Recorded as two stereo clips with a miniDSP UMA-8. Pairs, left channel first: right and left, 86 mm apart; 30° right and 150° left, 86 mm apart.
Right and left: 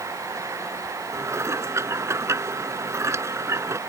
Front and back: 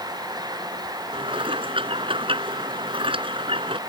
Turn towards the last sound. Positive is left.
turn(degrees=150)